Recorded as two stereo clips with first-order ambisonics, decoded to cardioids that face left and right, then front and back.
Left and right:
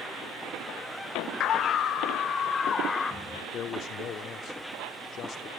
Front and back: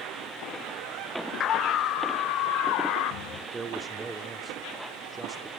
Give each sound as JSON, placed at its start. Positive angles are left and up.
{"t": 1.4, "sound": "a scream", "azimuth_deg": 50, "distance_m": 1.2}
{"t": 3.5, "sound": "a man speaking", "azimuth_deg": 115, "distance_m": 0.9}